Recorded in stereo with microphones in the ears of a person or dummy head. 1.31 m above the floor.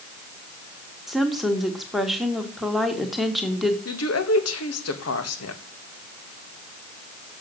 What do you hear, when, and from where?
1.1 s a woman speaking: centre (ahead or behind), 1.6 m
3.9 s a woman speaking: 80° left, 1.9 m